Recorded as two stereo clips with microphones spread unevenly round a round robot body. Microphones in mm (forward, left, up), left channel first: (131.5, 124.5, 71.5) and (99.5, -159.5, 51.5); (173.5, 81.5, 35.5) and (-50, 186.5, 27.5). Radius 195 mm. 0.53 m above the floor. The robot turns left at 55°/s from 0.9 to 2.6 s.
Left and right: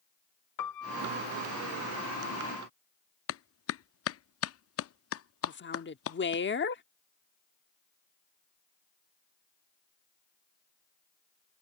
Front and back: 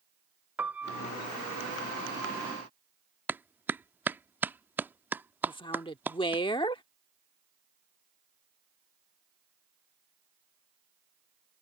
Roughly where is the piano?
Left.